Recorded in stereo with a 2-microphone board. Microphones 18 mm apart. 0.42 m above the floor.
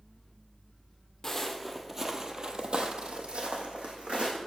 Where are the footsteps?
15° left (ahead or behind), 0.8 m; by 4.4 s 75° right (ahead or behind), 1.6 m.